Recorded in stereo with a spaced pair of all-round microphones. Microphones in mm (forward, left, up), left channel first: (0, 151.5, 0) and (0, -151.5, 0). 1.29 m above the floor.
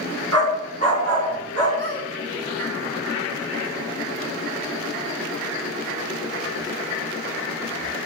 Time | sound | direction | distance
0.3 | a dog barking | 55° right (ahead or behind) | 4 m
1.8 | a squeak | 40° right (ahead or behind) | 3.5 m